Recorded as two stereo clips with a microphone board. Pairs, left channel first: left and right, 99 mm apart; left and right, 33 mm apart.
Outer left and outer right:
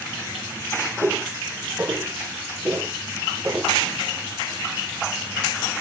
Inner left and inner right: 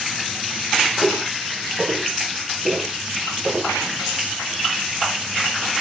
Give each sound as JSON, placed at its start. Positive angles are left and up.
{"t": 1.0, "sound": "footsteps", "side_deg": -20, "distance_m": 6.0}